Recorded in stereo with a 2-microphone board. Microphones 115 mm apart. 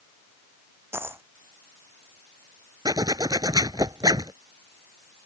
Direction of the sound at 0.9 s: 20° right (ahead or behind).